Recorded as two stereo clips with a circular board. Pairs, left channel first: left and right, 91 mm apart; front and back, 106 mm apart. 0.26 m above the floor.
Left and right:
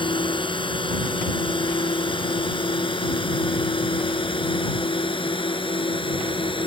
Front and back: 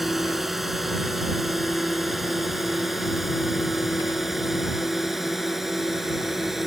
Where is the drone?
95° left.